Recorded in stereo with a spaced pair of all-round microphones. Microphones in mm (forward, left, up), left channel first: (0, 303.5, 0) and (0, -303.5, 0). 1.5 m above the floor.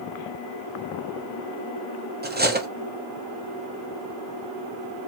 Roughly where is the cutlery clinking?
Centre.